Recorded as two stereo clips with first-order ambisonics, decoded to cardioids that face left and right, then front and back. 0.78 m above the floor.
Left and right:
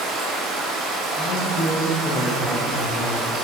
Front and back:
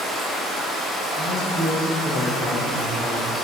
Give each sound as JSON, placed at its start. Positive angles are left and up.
{"t": 0.0, "sound": "running water", "azimuth_deg": -85, "distance_m": 0.7}
{"t": 1.2, "sound": "a man speaking", "azimuth_deg": 85, "distance_m": 0.6}